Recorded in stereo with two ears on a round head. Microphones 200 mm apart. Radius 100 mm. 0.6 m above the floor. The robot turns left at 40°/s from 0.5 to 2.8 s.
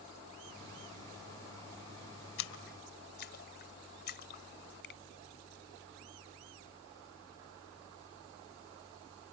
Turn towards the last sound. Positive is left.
turn(degrees=50)  # may be behind; listen again after turning